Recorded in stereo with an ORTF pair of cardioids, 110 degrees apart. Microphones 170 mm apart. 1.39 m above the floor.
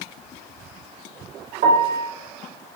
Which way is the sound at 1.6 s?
60° right.